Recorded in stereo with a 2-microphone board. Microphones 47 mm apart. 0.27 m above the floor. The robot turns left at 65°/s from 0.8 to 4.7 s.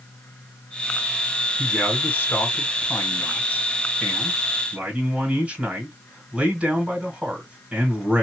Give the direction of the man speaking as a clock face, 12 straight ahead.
6 o'clock.